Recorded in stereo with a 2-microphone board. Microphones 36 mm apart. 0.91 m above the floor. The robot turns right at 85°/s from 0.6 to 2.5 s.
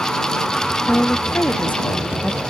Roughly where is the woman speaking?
Ahead left.